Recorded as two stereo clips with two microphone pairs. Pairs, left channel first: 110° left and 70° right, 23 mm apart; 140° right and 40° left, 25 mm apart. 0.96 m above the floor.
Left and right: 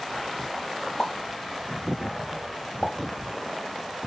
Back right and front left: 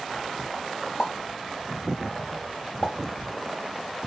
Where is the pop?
165° left, 1.7 m.